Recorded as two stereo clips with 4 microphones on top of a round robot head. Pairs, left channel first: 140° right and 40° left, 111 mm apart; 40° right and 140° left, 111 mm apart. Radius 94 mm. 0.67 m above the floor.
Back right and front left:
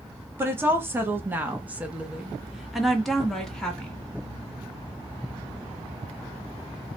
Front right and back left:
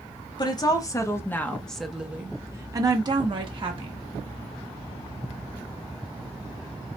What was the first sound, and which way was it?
A woman speaking, 20° right.